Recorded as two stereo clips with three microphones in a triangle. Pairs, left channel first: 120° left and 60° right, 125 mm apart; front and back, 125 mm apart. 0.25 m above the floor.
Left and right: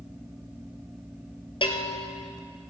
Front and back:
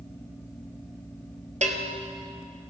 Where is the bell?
165° left, 1.3 m.